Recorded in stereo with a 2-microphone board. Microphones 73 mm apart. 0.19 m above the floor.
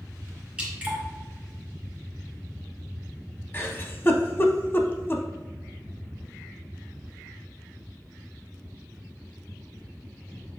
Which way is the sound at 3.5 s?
30° left (ahead or behind).